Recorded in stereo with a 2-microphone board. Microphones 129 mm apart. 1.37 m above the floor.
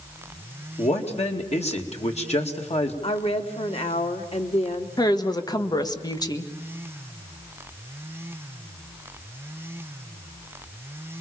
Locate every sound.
0.8 s a man speaking: 55° left (ahead or behind), 2.5 m
3.0 s a woman speaking: 50° left (ahead or behind), 2 m
5.0 s a woman speaking: 30° left (ahead or behind), 1.5 m